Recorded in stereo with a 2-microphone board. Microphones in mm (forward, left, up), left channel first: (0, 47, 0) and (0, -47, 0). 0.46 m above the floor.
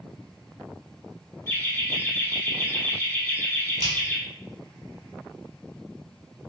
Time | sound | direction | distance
1.5 | laughter | 25° left (ahead or behind) | 1.0 m
3.8 | a finger snap | 45° right (ahead or behind) | 0.9 m